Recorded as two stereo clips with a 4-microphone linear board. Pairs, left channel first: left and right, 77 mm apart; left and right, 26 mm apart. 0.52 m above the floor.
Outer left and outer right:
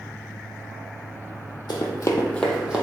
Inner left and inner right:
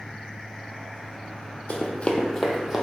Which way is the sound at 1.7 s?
60° left (ahead or behind).